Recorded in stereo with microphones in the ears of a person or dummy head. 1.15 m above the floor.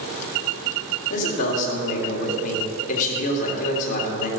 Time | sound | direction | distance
1.1 | a man speaking | 45° left (ahead or behind) | 3 m